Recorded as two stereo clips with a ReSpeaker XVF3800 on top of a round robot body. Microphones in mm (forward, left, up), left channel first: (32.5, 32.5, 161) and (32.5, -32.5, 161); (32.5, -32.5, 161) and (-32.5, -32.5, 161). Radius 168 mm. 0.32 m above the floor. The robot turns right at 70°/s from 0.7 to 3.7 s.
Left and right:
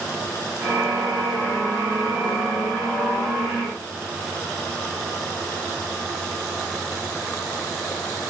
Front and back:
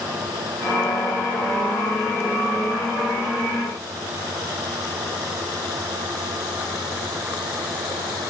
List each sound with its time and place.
Only background noise.